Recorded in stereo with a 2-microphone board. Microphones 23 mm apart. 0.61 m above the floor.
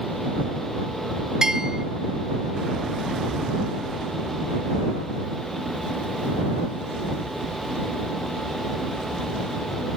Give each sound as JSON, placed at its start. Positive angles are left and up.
{"t": 1.4, "sound": "a bell", "side_deg": -25}